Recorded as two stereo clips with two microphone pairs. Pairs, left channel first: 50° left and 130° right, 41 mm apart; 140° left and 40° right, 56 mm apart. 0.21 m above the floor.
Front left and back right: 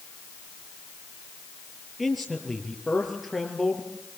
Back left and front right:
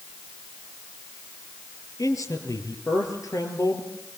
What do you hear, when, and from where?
2.0 s a man speaking: 140° left, 5.5 m